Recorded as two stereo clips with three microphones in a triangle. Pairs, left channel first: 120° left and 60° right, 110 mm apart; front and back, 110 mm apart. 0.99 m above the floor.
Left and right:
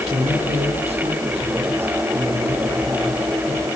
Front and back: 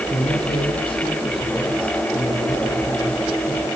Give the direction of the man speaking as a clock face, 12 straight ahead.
1 o'clock.